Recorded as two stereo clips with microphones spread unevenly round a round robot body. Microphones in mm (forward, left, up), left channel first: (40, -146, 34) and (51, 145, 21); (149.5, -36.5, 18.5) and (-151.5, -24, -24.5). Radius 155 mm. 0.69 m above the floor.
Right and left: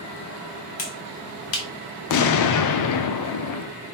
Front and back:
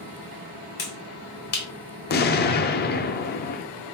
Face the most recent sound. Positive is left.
turn(degrees=-65)